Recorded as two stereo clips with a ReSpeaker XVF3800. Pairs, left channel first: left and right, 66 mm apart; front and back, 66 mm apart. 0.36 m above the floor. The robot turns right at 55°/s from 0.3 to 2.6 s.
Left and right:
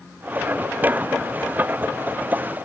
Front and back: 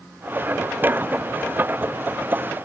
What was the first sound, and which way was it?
Only background noise.